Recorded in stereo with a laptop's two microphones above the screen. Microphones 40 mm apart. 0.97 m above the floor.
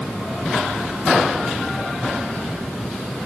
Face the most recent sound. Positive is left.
No sound to turn to.